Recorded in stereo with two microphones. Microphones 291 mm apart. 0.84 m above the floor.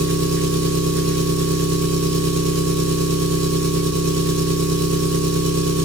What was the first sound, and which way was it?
An engine running, 65° right (ahead or behind).